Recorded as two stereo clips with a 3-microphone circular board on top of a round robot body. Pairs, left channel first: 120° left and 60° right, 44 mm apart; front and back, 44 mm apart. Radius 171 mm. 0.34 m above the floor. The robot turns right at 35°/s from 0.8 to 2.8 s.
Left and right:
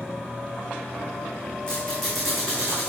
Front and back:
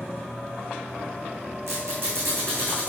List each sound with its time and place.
1.7 s a squeak: 170° right, 3 m; by 2.9 s 130° right, 3 m